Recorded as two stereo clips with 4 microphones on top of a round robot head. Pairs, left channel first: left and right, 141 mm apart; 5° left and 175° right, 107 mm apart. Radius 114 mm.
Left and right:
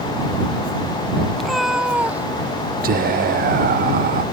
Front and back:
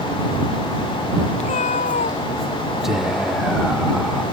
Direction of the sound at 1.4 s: 5° left.